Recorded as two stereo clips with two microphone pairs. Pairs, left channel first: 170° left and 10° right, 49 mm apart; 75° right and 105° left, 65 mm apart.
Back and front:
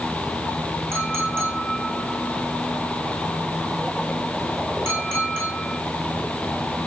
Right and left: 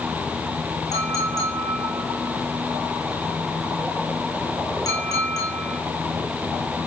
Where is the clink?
45° right, 9.5 m.